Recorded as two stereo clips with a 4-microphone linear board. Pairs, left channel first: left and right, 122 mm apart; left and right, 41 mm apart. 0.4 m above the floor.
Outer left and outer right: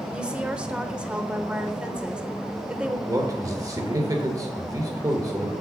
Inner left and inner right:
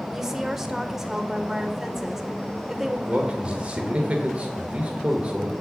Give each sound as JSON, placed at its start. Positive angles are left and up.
{"t": 0.1, "sound": "a woman speaking", "side_deg": -10, "distance_m": 0.9}
{"t": 3.1, "sound": "a man speaking", "side_deg": -30, "distance_m": 1.1}